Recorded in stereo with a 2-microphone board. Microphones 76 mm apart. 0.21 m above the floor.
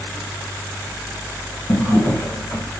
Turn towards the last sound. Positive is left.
turn(degrees=45)  # may be behind; listen again after turning